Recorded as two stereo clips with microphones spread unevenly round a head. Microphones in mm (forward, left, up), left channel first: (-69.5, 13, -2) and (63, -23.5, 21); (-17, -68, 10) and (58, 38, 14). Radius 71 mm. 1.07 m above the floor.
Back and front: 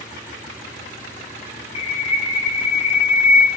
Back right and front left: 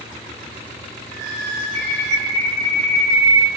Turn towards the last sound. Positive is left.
turn(degrees=110)